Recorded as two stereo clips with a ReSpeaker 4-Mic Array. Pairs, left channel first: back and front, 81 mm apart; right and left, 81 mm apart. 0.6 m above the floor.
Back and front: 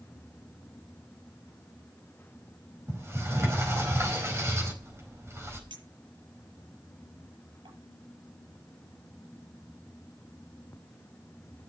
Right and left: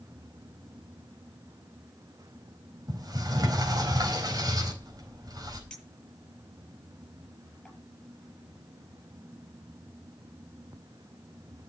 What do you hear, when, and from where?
2.9 s a sliding door: 55° left, 4 m
5.7 s a clink: 5° right, 8 m